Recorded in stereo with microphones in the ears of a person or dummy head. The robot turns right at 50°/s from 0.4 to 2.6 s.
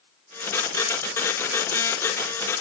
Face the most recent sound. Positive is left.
No sound to turn to.